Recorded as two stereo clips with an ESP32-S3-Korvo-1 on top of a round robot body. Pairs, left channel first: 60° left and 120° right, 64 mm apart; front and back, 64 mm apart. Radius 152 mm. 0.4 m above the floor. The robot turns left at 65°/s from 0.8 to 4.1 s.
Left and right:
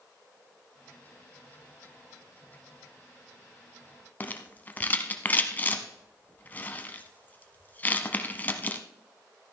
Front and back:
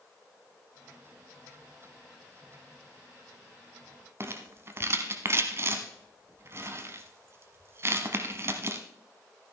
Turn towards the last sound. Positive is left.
turn(degrees=125)